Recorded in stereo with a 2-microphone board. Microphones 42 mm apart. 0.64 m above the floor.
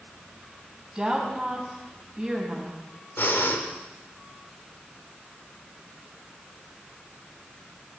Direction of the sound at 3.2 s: 70° left (ahead or behind).